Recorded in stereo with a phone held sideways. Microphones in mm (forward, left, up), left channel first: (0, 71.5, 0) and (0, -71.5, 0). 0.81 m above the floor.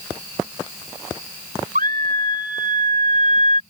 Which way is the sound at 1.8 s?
75° right (ahead or behind).